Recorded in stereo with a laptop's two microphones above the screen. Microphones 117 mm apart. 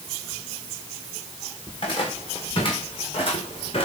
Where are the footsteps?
45° left (ahead or behind), 6.5 m; by 3.9 s 50° left (ahead or behind), 5.5 m.